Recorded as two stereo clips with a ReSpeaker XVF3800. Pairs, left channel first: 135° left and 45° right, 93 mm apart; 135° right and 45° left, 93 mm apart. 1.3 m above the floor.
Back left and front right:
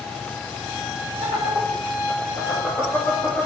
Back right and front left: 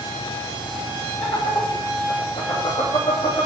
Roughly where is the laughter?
Behind.